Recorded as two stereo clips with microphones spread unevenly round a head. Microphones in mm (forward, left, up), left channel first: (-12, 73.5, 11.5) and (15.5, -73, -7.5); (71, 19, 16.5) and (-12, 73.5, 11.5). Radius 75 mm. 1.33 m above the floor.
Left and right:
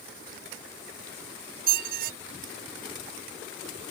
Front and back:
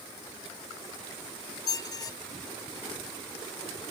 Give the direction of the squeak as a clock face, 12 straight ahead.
3 o'clock.